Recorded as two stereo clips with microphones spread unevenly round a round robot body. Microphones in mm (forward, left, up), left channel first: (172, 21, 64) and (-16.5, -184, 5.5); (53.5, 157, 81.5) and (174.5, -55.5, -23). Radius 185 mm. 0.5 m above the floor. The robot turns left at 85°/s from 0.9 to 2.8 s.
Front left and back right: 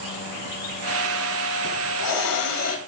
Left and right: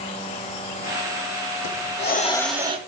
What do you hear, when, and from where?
1.6 s a hiss: 100° left, 1.3 m; by 2.8 s 5° left, 1.3 m